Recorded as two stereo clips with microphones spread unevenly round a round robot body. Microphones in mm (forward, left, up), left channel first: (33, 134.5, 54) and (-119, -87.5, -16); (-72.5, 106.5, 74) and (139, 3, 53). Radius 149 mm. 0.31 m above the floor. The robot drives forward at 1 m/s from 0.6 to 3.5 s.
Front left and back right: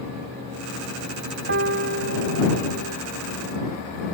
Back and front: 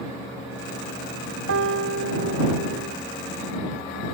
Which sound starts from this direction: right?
A piano, at 1.5 s.